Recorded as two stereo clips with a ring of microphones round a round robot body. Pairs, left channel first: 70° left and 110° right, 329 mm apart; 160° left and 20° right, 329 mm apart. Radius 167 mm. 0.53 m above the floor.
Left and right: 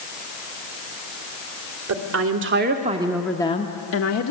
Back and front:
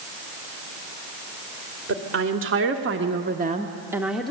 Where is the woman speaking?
75° right, 2 m; by 4.3 s 70° left, 1.5 m.